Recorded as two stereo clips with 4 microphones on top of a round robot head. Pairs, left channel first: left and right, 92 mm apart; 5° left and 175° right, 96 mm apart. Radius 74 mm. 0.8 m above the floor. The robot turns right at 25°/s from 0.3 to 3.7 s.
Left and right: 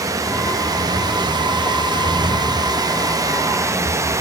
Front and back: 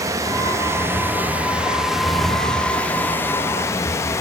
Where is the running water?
130° right, 0.9 m; by 4.2 s 45° right, 0.9 m.